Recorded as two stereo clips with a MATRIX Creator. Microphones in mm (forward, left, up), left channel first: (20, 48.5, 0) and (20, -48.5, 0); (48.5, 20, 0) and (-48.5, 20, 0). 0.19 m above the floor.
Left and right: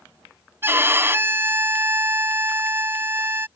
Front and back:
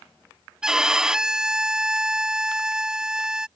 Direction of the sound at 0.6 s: 105° right.